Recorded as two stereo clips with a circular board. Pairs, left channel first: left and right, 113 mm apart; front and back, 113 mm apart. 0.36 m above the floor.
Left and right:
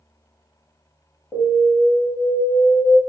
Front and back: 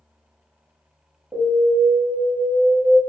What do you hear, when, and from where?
1.3 s an alarm: 125° left, 1.2 m